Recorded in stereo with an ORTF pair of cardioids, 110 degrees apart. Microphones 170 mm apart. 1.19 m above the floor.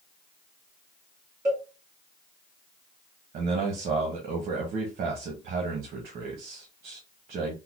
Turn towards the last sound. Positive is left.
turn(degrees=-55)